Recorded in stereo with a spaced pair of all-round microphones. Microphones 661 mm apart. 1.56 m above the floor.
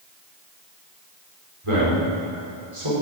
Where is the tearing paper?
I don't hear tearing paper.